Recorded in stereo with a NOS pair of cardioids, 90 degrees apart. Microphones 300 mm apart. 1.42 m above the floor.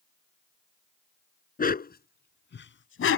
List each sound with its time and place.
1.6 s a dog barking: 30° left; by 3.2 s 55° left